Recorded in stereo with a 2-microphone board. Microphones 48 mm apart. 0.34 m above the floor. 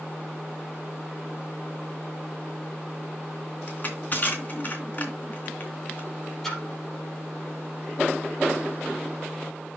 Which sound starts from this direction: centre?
A splash, at 6.4 s.